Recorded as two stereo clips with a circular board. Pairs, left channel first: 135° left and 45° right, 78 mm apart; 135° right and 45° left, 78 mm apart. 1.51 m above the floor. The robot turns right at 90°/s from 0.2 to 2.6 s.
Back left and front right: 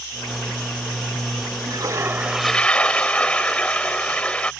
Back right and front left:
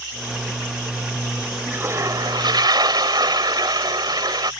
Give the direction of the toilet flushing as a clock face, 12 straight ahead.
1 o'clock.